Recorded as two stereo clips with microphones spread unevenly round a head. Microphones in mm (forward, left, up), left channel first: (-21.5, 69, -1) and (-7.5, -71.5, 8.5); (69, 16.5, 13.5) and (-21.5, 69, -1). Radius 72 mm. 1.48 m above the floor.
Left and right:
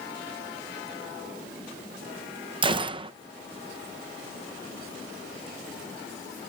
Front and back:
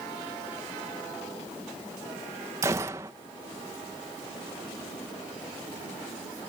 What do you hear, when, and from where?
2.6 s a gunshot: 135° right